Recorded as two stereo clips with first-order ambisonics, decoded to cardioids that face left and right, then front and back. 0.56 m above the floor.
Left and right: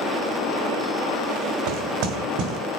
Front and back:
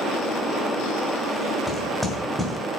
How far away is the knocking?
About 1.4 m.